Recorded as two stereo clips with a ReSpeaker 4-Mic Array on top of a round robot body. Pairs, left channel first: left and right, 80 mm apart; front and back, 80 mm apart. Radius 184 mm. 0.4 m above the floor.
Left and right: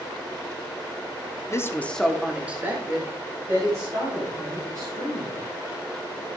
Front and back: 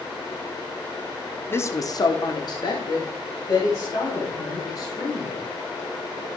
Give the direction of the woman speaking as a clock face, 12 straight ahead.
10 o'clock.